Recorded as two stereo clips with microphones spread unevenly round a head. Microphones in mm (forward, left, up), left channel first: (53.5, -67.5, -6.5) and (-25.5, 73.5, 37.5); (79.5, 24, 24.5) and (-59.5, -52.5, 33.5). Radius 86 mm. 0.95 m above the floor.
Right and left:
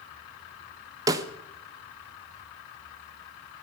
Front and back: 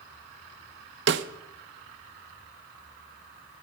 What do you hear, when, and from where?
1.1 s a snare drum: 170° right, 0.8 m